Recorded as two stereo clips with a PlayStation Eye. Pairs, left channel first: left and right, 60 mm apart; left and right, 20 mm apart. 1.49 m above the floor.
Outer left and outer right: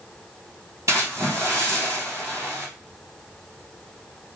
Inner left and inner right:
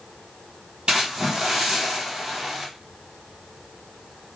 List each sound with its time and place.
0.9 s a splash: 60° right (ahead or behind), 1.9 m